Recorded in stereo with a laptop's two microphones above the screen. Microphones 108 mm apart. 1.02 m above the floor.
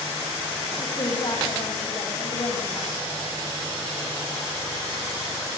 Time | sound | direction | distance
0.8 | a woman speaking | 45° left (ahead or behind) | 5.5 m